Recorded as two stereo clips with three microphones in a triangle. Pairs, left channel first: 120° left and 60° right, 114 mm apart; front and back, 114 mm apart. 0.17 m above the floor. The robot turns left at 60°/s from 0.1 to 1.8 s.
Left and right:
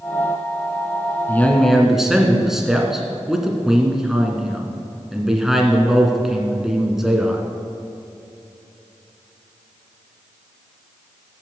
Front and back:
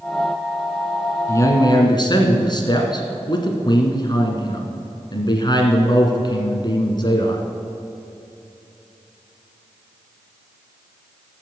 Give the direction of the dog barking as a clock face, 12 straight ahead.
No dog barking in this recording.